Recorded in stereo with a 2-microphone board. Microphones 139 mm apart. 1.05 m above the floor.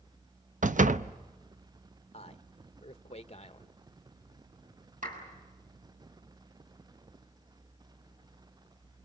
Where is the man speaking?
45° left (ahead or behind), 1.0 m.